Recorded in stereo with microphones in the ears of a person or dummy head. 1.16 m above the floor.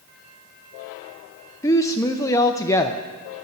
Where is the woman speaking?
10° left (ahead or behind), 0.5 m.